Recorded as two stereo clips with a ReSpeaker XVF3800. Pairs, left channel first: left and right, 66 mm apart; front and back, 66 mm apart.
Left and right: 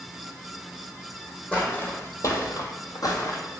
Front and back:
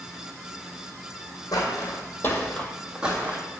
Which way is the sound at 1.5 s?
20° left.